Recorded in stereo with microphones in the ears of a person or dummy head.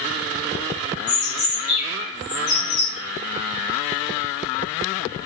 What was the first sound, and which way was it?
A bird, 40° left (ahead or behind).